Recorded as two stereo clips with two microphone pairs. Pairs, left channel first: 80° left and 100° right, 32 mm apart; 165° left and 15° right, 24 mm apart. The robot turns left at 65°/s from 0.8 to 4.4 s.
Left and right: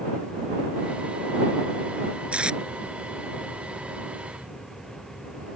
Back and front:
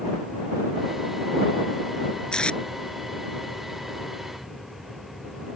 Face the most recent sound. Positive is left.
turn(degrees=75)